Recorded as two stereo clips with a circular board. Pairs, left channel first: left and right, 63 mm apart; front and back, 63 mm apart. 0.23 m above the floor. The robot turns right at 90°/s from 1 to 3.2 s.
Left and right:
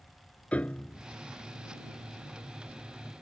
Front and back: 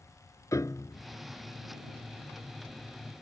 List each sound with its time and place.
0.5 s a piano: 20° left; by 1.0 s 25° left